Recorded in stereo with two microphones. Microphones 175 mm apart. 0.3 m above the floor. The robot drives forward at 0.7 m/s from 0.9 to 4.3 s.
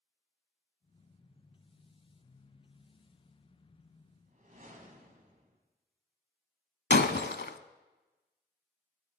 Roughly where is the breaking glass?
Left.